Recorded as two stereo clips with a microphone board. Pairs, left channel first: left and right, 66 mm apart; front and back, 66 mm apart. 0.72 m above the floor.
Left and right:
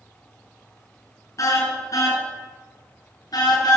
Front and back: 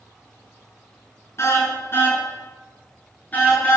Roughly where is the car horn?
Ahead left.